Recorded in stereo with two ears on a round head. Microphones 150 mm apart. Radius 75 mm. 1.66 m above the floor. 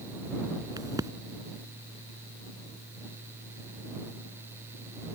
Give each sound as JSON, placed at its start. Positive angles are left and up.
{"t": 0.8, "sound": "a crack", "side_deg": -20}